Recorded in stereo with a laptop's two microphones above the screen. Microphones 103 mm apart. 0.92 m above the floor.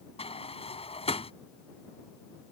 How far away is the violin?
No violin in this recording.